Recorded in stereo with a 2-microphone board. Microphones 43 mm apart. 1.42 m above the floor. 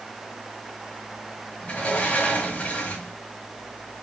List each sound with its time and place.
1.6 s a sliding door: 35° left (ahead or behind), 1.5 m